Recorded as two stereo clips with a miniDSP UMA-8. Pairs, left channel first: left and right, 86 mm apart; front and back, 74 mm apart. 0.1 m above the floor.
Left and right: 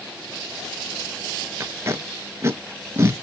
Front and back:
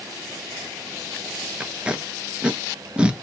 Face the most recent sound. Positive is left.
turn(degrees=-115)